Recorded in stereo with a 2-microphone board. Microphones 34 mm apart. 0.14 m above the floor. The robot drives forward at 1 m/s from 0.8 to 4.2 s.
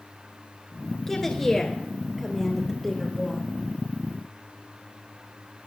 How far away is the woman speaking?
About 1.6 m.